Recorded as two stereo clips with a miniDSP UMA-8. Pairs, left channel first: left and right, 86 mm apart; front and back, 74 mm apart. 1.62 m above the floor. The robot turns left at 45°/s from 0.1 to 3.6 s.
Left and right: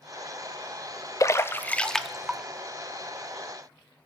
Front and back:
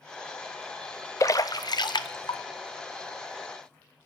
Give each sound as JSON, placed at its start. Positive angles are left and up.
{"t": 1.2, "sound": "a splash", "azimuth_deg": 40, "distance_m": 0.5}